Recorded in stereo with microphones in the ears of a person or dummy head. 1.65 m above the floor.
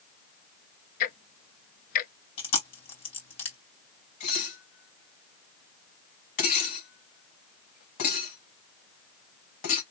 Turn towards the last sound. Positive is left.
turn(degrees=40)  # may be behind; listen again after turning